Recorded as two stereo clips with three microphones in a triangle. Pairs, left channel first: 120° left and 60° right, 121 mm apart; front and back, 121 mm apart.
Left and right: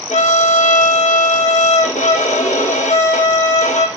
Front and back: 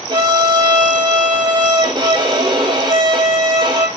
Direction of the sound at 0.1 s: 130° left.